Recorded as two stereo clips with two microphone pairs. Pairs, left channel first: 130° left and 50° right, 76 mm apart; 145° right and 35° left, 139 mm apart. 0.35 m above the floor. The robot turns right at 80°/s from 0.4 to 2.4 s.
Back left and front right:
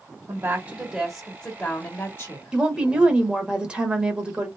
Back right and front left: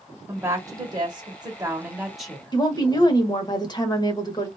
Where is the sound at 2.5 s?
115° right, 1.0 m.